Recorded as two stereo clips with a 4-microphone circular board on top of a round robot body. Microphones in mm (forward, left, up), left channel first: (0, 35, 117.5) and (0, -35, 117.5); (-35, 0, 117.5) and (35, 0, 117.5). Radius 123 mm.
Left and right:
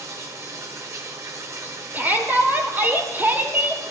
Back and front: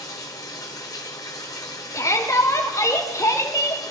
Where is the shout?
150° right, 2 m.